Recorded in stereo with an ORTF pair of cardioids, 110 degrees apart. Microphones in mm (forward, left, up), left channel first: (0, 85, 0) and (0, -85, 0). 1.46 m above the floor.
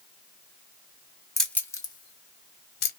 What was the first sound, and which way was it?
Keys jangling, straight ahead.